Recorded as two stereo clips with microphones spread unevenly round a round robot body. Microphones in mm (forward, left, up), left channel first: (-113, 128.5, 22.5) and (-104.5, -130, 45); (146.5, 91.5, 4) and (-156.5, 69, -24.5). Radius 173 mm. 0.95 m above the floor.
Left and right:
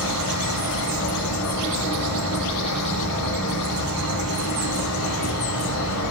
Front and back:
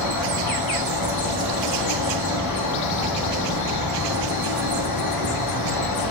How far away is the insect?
About 3 m.